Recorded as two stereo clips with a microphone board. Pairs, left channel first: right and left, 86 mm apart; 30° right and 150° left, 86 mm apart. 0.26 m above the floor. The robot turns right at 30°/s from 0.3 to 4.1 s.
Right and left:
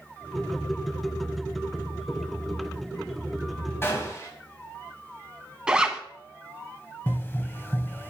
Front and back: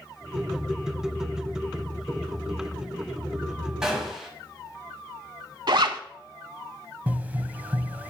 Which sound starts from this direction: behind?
A zipper, at 5.7 s.